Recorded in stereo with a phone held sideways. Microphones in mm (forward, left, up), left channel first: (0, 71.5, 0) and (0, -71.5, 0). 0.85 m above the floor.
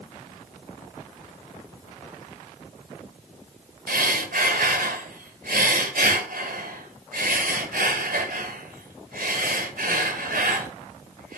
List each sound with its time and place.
3.9 s breathing: 85° right, 1.9 m